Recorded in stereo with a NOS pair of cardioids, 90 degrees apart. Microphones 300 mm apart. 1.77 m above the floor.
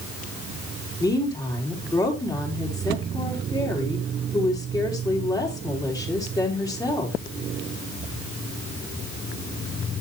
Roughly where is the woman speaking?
Ahead.